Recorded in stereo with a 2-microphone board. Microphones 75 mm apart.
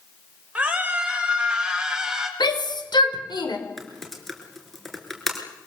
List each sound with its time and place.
0.6 s a scream: 15° right (ahead or behind), 6 m; by 2.3 s 10° right (ahead or behind), 4.5 m
2.4 s a shout: 70° left (ahead or behind), 4.5 m
3.8 s typing on a keyboard: 5° left (ahead or behind), 4.5 m